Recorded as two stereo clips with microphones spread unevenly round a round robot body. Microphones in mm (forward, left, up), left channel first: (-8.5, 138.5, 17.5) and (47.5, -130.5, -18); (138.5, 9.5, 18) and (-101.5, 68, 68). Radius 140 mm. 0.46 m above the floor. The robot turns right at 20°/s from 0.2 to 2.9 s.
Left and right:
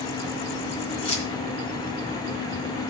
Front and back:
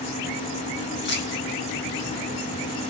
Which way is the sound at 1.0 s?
30° left.